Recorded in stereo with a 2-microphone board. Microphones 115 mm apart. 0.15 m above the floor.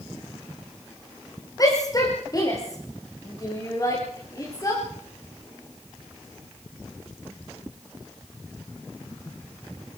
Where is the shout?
30° left (ahead or behind), 9.5 m.